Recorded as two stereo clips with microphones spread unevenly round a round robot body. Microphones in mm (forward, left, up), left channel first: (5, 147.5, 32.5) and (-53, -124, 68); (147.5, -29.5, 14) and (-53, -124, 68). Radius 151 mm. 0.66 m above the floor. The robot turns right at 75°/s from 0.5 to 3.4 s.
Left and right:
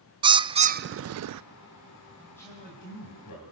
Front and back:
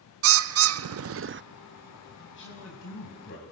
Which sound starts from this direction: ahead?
A man speaking, at 2.2 s.